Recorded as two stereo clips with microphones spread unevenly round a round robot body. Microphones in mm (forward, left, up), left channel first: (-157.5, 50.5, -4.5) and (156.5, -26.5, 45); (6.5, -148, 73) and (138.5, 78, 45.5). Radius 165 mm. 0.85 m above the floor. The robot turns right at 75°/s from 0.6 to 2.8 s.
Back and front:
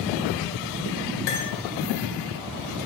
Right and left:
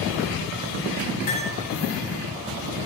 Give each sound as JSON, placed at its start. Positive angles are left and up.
{"t": 1.3, "sound": "cutlery clinking", "azimuth_deg": 175, "distance_m": 2.5}